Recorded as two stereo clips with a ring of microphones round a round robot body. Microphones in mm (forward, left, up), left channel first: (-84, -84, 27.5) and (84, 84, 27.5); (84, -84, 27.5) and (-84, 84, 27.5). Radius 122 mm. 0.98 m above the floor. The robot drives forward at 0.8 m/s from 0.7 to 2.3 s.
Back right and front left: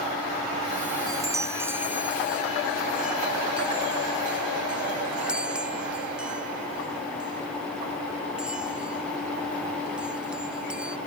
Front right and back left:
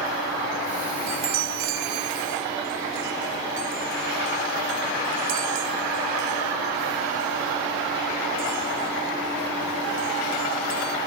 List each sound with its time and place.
1.1 s a chime: 120° left; by 11.0 s 130° left